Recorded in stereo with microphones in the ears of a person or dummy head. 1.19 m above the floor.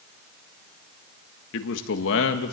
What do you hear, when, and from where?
1.5 s a man speaking: 70° left (ahead or behind), 1.7 m